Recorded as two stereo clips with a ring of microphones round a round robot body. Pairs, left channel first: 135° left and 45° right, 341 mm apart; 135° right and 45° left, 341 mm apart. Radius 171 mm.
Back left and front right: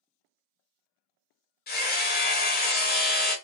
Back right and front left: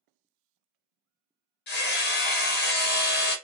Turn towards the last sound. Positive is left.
turn(degrees=-175)